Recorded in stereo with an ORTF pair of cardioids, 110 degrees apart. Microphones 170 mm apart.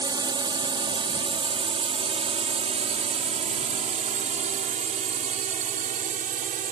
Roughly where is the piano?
No piano in this recording.